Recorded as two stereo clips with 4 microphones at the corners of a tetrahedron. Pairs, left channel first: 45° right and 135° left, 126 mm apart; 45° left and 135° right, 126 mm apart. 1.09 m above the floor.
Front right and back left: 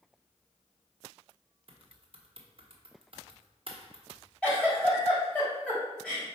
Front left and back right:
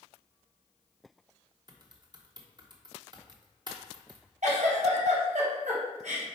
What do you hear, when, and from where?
1.7 s typing on a keyboard: 175° left, 1.1 m
4.4 s a giggle: 125° right, 2.5 m